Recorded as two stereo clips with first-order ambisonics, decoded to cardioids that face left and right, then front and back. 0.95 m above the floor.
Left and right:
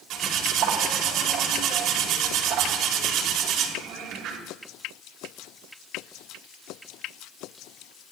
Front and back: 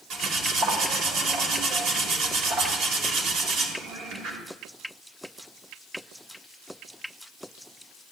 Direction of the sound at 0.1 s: 130° right.